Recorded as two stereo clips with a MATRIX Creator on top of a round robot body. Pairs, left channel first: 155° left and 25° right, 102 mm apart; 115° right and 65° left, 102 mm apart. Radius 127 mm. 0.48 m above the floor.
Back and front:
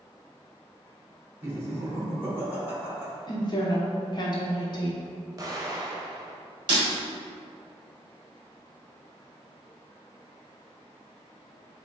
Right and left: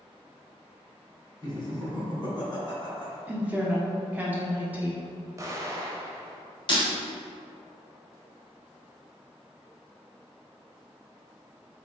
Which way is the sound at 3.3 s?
135° left.